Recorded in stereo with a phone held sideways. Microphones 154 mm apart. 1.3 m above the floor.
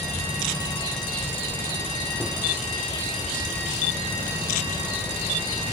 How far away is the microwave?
About 0.6 m.